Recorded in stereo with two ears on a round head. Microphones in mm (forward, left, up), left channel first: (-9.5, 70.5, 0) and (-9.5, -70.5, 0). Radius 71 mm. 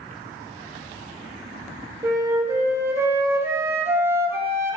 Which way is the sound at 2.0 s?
15° right (ahead or behind).